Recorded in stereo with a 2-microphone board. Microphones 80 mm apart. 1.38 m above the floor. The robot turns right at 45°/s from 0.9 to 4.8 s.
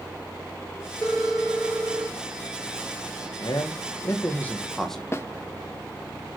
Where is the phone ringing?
170° left, 3.5 m; by 2.2 s 140° right, 3.5 m.